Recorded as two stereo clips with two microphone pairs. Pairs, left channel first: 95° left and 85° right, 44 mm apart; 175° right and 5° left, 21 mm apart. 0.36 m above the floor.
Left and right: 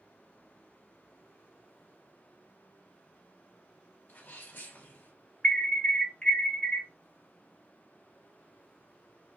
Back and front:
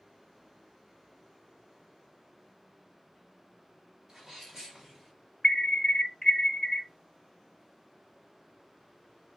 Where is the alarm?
150° left, 1.3 m.